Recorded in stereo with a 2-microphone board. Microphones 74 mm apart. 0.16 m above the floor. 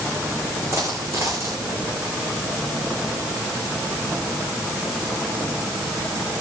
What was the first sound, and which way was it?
A dropped coin, 40° right (ahead or behind).